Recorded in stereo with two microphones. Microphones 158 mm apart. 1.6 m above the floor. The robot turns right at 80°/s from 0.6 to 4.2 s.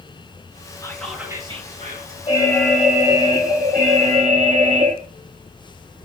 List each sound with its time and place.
0.8 s whispering: 155° left, 2.5 m; by 2.2 s 90° right, 2.5 m
2.3 s an alarm: 145° left, 3.5 m; by 5.0 s 60° right, 3.5 m